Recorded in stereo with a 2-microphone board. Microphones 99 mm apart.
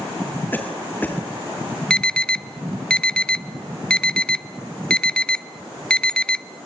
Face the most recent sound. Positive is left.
turn(degrees=10)  # may be behind; listen again after turning